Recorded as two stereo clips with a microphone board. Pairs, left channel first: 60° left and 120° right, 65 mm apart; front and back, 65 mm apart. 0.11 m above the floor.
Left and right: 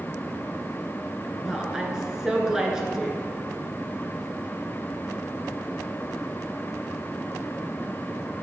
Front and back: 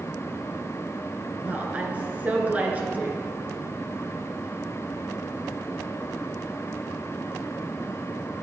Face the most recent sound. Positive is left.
turn(degrees=175)